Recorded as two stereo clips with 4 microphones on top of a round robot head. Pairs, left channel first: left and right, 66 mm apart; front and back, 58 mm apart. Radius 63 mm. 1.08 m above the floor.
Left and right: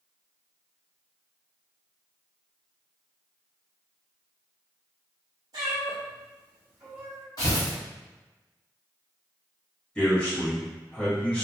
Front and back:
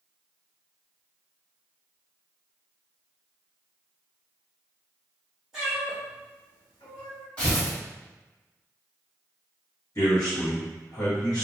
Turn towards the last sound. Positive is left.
turn(degrees=20)